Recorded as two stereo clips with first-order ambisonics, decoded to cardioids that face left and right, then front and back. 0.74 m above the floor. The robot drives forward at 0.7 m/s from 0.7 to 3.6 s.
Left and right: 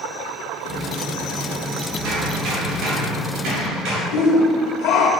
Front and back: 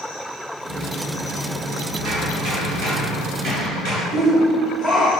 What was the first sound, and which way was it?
Hammering, 125° right.